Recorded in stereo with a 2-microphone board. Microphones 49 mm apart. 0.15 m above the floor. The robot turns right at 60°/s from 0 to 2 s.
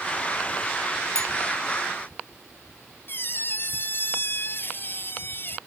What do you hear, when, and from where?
1.1 s a bell: 60° right (ahead or behind); by 1.3 s 70° right (ahead or behind)
3.1 s a squeak: 50° left (ahead or behind)